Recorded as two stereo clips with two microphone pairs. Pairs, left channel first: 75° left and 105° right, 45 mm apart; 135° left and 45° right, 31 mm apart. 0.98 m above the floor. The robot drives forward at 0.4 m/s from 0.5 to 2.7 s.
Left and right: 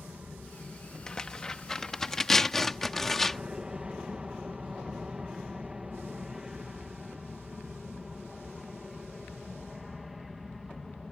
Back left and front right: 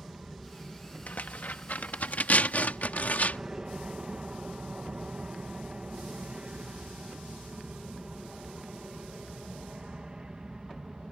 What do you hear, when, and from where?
0.0 s an aircraft: 75° right; by 11.1 s 15° right
1.1 s tearing paper: 145° left; by 3.4 s 155° left